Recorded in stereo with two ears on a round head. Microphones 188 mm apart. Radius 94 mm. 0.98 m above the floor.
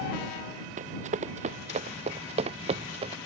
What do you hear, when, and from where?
0.8 s running footsteps: 35° right (ahead or behind); by 3.2 s 30° right (ahead or behind)